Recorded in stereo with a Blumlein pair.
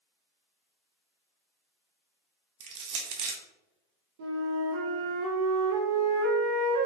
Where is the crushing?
45° right, 0.7 m.